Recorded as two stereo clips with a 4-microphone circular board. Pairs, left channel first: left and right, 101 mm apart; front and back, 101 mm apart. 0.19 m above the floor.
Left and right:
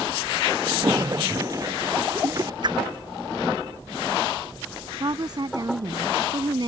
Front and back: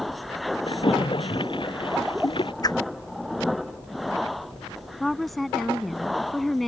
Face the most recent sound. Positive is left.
turn(degrees=-90)